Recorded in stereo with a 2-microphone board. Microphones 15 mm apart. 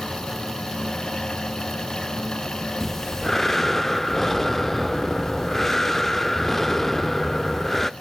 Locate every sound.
2.8 s breathing: 20° left (ahead or behind), 0.5 m